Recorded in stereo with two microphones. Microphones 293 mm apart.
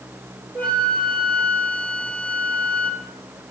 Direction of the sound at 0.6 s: 5° left (ahead or behind).